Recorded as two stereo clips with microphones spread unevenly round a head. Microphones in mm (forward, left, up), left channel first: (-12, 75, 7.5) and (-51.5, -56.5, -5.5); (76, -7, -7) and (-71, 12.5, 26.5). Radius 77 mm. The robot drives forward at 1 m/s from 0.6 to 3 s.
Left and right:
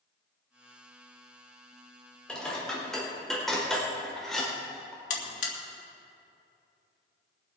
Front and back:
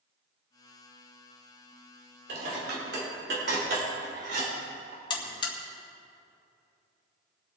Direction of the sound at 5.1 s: 55° left.